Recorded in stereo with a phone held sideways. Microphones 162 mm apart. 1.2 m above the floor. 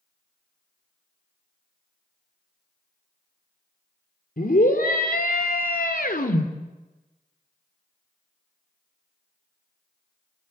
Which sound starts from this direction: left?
A scream, at 4.4 s.